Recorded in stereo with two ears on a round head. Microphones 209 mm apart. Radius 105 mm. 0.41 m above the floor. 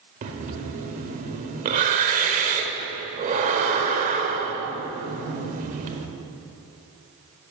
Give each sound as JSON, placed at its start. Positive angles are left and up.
{"t": 0.2, "sound": "breathing", "side_deg": -35, "distance_m": 1.0}